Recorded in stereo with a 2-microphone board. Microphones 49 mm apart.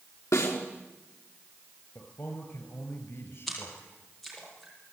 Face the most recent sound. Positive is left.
turn(degrees=0)  # may be behind; listen again after turning